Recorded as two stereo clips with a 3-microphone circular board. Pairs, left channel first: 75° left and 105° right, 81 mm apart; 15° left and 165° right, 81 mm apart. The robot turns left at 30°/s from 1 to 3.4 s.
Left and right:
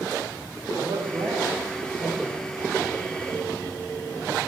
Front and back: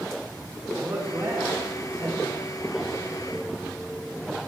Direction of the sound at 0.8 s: 120° right.